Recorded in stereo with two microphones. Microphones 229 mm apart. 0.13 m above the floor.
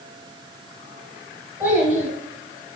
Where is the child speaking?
10° right (ahead or behind), 1.5 m.